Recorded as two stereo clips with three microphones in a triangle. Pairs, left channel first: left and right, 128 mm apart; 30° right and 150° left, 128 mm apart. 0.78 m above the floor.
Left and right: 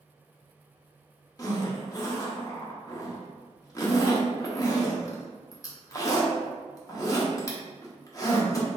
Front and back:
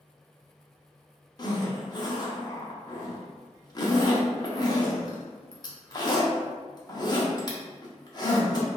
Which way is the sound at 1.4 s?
25° left.